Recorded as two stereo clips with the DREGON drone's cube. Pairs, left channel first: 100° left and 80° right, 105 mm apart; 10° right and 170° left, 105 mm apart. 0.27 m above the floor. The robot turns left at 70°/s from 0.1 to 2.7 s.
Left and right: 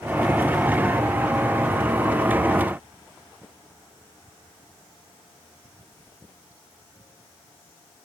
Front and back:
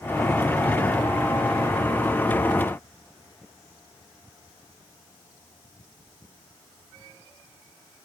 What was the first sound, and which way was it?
Only background noise.